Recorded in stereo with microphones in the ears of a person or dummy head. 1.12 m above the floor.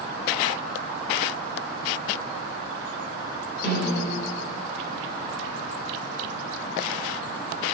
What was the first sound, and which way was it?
A snare drum, 60° left (ahead or behind).